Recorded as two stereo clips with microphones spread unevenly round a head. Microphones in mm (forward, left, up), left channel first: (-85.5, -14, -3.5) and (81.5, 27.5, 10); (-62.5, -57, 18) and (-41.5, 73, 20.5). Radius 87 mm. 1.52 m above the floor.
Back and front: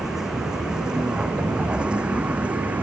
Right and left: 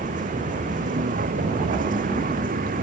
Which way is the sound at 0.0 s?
100° left.